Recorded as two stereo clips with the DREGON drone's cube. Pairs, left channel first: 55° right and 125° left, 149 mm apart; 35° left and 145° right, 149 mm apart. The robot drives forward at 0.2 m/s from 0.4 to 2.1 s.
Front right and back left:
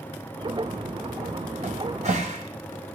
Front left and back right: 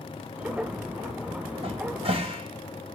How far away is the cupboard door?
About 3 m.